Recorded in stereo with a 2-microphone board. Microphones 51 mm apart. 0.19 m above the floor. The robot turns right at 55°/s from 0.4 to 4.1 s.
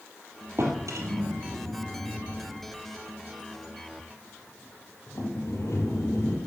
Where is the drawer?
60° right (ahead or behind), 2.5 m; by 6.4 s 70° left (ahead or behind), 2.5 m.